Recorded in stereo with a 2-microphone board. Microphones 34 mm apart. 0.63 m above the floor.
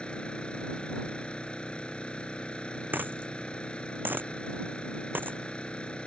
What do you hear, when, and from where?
0.0 s an engine running: 30° left (ahead or behind)
2.9 s a dropped coin: 75° right (ahead or behind)